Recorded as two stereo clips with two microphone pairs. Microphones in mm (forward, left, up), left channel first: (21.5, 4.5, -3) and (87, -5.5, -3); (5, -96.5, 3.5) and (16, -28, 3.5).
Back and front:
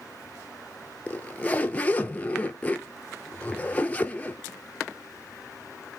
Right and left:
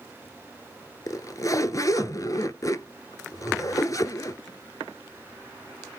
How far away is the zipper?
About 0.7 m.